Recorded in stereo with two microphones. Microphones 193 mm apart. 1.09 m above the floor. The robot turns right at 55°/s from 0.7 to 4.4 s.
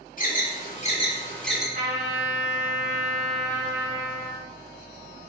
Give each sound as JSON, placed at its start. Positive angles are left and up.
{"t": 0.2, "sound": "an alarm", "side_deg": 45, "distance_m": 1.8}
{"t": 1.8, "sound": "a trumpet", "azimuth_deg": -125, "distance_m": 2.5}